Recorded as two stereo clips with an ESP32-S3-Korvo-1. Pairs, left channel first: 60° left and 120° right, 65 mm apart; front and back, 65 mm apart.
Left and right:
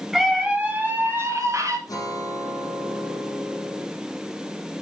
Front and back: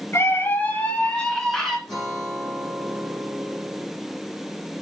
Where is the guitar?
95° left, 5.5 m.